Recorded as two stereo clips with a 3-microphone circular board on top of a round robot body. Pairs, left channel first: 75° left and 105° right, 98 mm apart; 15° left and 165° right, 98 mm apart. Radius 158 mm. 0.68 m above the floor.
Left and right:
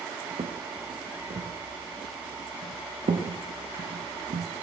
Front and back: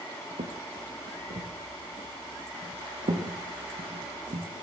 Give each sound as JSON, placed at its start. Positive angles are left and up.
{"t": 0.4, "sound": "footsteps", "azimuth_deg": -145, "distance_m": 4.0}